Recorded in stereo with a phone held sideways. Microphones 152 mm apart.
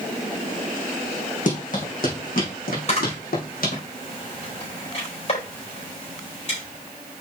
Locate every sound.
1.5 s running footsteps: 60° left (ahead or behind), 4 m; by 3.8 s 70° left (ahead or behind), 3.5 m
2.9 s a camera shutter: 45° left (ahead or behind), 4.5 m